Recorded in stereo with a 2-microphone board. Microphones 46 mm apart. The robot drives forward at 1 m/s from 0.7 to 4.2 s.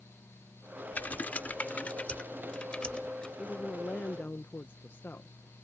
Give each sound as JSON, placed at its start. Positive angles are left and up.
{"t": 0.9, "sound": "typing on a keyboard", "side_deg": 40}
{"t": 3.4, "sound": "a woman speaking", "side_deg": 30}